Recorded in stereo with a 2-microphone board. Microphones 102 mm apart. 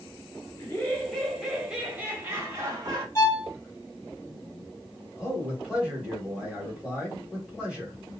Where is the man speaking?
10° right (ahead or behind), 1.8 m.